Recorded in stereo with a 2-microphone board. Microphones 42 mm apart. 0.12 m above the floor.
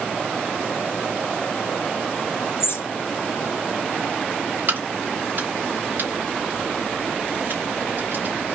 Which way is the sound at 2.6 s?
70° left (ahead or behind).